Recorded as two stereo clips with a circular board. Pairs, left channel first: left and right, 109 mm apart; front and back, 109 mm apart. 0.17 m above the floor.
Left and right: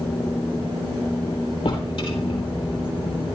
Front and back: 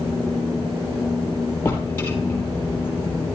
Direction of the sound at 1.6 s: 65° left.